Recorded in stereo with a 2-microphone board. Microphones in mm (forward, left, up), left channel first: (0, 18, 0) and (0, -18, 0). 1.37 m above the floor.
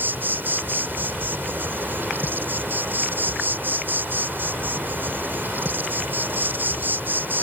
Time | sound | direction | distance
0.0 | an insect | 60° right (ahead or behind) | ?